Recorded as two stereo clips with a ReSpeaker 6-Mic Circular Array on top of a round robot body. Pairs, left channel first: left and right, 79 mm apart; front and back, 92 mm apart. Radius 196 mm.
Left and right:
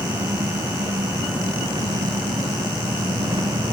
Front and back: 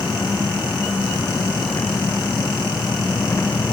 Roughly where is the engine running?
Ahead right.